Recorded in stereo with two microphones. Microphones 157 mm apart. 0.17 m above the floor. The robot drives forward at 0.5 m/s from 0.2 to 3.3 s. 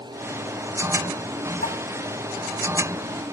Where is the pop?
75° left (ahead or behind), 1.9 m.